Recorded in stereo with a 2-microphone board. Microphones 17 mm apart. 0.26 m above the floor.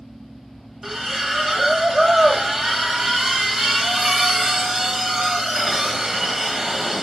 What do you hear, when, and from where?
0.8 s a splash: 25° right (ahead or behind), 1.0 m